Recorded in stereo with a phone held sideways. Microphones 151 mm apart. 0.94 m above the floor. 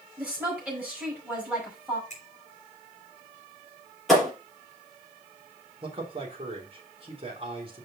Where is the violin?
I don't hear a violin.